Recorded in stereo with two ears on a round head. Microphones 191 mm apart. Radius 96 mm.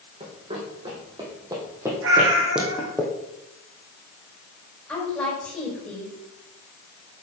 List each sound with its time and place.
0.2 s running footsteps: 30° right (ahead or behind), 3.5 m; by 3.0 s 5° left (ahead or behind), 3 m
2.0 s a cat meowing: 65° right (ahead or behind), 3.5 m
4.9 s a woman speaking: 5° left (ahead or behind), 4 m